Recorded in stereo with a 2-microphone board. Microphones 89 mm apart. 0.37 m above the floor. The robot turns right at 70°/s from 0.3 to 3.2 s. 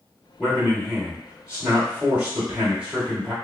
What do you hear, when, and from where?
0.4 s a man speaking: 10° left (ahead or behind), 1.5 m; by 3.3 s 5° right (ahead or behind), 1.5 m